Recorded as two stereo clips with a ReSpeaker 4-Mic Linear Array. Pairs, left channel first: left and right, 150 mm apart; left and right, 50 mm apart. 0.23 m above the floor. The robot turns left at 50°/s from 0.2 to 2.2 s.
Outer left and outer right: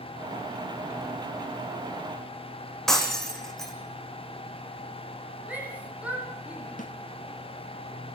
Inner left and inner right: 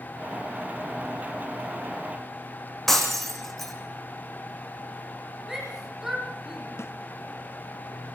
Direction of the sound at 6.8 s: 65° left (ahead or behind).